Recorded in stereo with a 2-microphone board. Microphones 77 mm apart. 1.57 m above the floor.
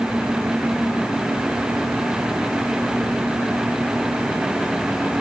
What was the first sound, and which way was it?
Only background noise.